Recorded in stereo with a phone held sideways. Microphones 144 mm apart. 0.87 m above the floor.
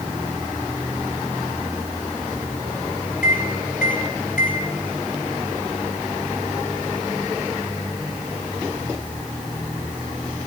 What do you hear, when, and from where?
3.2 s a microwave: 65° left (ahead or behind), 2.5 m